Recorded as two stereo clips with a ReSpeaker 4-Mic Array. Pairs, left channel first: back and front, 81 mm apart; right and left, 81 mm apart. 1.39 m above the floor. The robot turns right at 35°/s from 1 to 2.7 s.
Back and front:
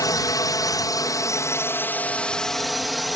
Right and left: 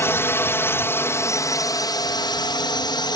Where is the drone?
145° right; by 3.2 s 90° right.